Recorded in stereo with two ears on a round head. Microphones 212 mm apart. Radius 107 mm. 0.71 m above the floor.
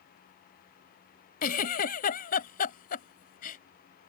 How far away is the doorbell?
I don't hear a doorbell.